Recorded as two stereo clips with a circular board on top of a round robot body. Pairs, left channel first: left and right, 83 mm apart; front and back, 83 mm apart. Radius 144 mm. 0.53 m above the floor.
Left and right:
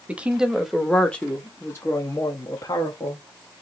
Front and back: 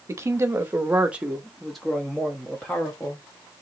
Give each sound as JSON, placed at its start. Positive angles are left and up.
{"t": 0.1, "sound": "a woman speaking", "azimuth_deg": -155, "distance_m": 1.3}